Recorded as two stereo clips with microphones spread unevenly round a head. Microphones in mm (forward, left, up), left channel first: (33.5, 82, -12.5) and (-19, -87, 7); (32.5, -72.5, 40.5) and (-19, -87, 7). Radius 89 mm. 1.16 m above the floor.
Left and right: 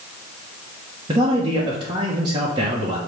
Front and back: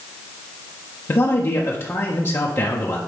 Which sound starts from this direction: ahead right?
A man speaking, at 1.1 s.